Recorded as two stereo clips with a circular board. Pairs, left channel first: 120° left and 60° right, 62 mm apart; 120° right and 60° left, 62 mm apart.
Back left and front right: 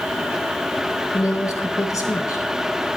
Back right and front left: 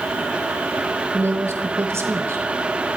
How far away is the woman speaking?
About 3 m.